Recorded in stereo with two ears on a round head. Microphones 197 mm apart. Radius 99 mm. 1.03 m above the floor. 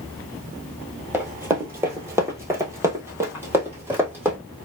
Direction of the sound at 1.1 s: 10° right (ahead or behind).